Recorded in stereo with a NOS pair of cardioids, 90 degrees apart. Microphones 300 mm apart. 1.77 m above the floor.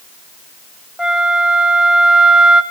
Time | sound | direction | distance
1.0 | a flute | straight ahead | 1.3 m